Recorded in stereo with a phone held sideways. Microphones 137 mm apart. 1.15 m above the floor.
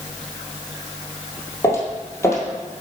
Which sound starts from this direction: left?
Footsteps, at 1.6 s.